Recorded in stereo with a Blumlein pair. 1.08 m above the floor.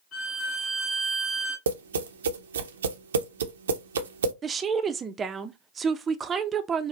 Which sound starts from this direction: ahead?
A woman speaking, at 4.4 s.